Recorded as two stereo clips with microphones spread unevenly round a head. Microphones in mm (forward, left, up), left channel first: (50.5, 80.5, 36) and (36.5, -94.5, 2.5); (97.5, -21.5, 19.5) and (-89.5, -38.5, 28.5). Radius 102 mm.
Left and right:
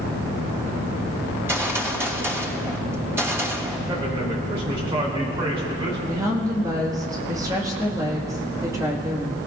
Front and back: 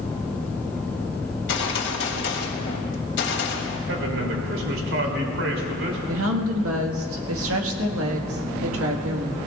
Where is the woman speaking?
170° right, 1.7 m.